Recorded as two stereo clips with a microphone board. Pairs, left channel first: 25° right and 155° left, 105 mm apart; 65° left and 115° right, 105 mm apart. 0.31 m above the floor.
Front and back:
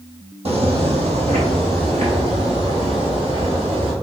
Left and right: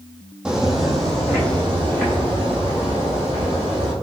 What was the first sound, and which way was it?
Footsteps, 165° left.